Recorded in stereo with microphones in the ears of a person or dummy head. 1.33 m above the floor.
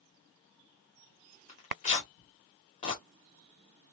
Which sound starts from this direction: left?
Tearing paper, at 1.5 s.